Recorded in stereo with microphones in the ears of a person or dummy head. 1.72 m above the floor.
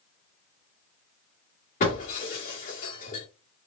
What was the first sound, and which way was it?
Breaking glass, 40° left (ahead or behind).